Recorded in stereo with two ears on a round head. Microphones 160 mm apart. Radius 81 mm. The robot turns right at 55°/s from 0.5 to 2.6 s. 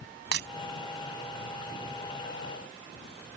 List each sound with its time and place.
0.3 s breaking glass: 70° right (ahead or behind)